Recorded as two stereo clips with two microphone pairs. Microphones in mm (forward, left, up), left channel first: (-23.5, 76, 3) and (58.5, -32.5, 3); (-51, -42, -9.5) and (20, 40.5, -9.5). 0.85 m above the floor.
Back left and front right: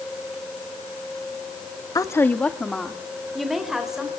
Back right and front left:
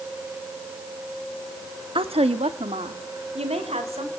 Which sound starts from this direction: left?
A woman speaking, at 1.9 s.